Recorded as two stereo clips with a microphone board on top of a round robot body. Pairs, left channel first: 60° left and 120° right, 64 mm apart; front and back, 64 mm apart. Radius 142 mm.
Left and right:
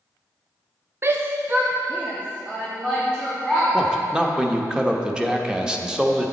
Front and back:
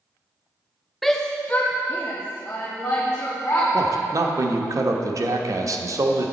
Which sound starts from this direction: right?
A shout, at 1.0 s.